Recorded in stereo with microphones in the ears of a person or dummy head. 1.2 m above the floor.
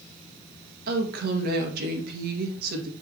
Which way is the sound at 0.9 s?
60° right (ahead or behind).